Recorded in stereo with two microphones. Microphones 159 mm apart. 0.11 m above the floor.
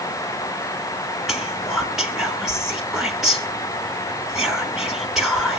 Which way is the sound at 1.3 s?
Centre (ahead or behind).